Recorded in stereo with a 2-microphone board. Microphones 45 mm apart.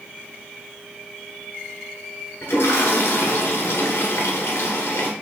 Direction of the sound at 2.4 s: 60° left (ahead or behind).